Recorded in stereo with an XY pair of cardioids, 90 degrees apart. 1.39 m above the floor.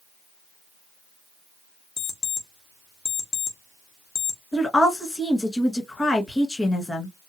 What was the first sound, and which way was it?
An alarm clock, 60° left.